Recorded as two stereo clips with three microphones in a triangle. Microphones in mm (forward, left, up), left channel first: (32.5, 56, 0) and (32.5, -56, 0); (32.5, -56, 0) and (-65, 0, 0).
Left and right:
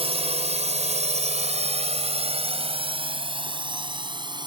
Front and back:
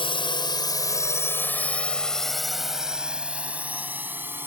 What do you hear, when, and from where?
0.0 s a drone: 65° right; by 4.5 s 140° right